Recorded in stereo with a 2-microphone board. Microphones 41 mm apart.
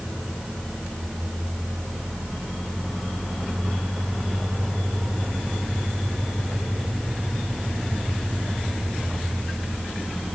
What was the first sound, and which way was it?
Only background noise.